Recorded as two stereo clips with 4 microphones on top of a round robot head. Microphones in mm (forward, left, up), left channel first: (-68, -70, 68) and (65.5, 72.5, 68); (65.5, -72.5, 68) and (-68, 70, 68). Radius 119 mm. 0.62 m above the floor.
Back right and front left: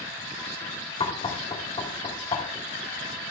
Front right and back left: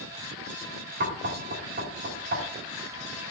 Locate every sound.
1.0 s knocking: 165° left, 1.4 m